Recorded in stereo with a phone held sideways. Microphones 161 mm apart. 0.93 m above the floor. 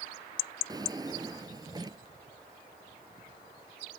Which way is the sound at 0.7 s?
25° right (ahead or behind).